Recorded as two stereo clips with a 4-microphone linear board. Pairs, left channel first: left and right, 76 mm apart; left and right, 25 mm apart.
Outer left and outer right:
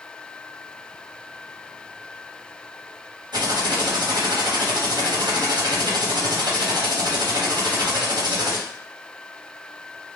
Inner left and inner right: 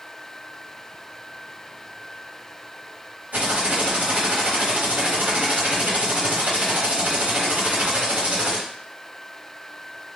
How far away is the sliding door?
I don't hear a sliding door.